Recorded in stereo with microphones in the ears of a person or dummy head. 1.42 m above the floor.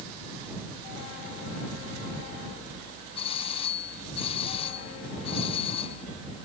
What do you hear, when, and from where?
3.1 s a doorbell: 30° left (ahead or behind)